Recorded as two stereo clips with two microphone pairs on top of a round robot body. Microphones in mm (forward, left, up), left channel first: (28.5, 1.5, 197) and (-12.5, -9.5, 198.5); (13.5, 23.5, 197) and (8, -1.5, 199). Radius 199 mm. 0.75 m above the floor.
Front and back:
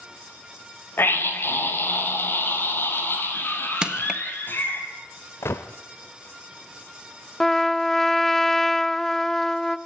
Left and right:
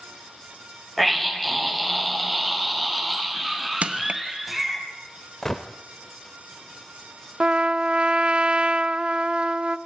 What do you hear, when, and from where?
1.0 s a scream: 15° right, 5.5 m; by 4.8 s 20° right, 7 m
3.8 s crushing: 95° right, 1.8 m
5.4 s a gunshot: 5° right, 0.5 m
7.4 s a trumpet: 65° right, 0.9 m